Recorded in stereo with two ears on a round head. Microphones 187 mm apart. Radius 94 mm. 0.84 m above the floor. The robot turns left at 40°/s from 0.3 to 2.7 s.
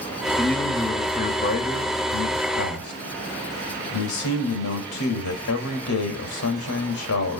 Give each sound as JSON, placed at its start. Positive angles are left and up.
{"t": 0.4, "sound": "a man speaking", "azimuth_deg": 180, "distance_m": 3.5}